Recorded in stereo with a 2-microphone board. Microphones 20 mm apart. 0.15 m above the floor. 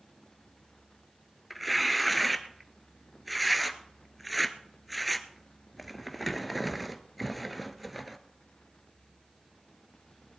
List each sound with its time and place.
1.5 s tearing paper: centre (ahead or behind), 1.0 m